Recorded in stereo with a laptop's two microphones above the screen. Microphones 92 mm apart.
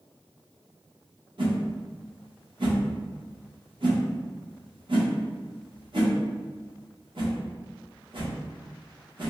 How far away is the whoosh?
About 0.9 m.